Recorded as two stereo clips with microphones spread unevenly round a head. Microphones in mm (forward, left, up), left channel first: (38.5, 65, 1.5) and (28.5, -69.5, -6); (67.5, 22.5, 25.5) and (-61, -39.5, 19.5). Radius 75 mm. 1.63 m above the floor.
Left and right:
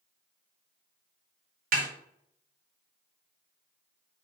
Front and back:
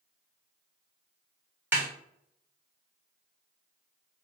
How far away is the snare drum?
About 0.8 m.